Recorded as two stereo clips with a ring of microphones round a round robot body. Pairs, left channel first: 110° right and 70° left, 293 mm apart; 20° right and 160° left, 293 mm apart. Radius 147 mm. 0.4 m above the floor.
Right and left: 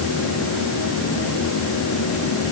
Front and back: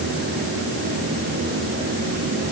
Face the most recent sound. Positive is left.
No sound to turn to.